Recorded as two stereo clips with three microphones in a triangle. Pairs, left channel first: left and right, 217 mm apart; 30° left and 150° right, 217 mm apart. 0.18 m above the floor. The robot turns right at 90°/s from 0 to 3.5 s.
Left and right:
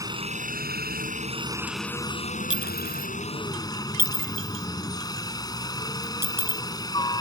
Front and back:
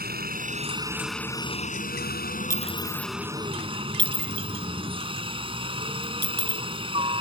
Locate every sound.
0.0 s a helicopter: 160° right; by 7.2 s 155° left
2.5 s a clink: 100° left; by 6.6 s 170° right